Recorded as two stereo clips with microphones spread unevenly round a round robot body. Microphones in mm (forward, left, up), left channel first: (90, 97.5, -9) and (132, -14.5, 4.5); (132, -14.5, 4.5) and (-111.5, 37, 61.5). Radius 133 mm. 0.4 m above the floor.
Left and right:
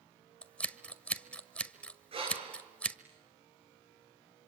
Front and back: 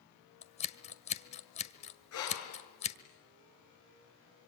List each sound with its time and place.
0.4 s scissors: 35° left, 1.5 m
2.1 s breathing: 35° right, 6.5 m